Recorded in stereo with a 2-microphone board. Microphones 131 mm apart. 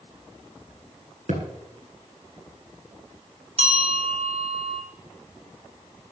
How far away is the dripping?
No dripping in this recording.